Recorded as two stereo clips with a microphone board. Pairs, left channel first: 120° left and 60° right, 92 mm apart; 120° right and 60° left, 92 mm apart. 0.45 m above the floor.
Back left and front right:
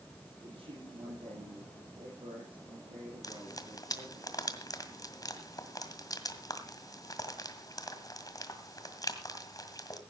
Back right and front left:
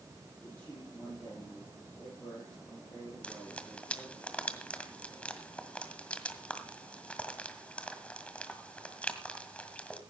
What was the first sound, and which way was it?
A man speaking, 55° right.